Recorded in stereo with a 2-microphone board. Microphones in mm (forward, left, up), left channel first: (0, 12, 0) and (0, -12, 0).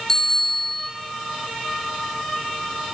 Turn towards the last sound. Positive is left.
turn(degrees=20)  # may be behind; listen again after turning